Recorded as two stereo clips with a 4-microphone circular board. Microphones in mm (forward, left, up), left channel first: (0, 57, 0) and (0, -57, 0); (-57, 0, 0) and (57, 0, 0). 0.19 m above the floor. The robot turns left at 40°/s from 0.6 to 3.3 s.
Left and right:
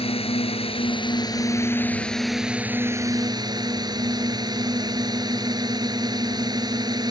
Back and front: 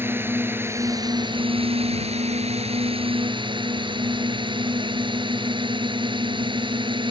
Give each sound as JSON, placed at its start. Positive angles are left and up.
{"t": 0.0, "sound": "a drone", "azimuth_deg": 70}